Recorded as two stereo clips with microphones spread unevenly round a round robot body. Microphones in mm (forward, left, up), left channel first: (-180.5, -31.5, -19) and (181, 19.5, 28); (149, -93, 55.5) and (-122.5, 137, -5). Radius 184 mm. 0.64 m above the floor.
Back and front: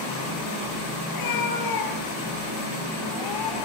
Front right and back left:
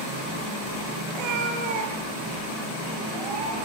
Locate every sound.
1.1 s a cat meowing: 150° left, 7 m; by 3.7 s 160° left, 11 m